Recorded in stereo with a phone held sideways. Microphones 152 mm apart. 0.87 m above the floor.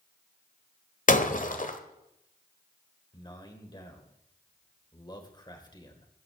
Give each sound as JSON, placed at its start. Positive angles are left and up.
{"t": 1.1, "sound": "breaking glass", "side_deg": 55, "distance_m": 1.3}
{"t": 3.1, "sound": "a man speaking", "side_deg": 30, "distance_m": 3.5}